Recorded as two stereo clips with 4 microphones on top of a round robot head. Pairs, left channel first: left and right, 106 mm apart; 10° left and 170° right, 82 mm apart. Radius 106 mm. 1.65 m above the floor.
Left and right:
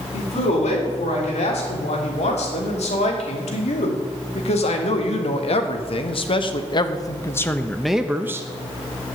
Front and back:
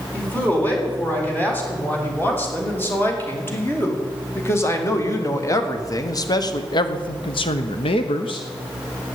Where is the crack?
No crack in this recording.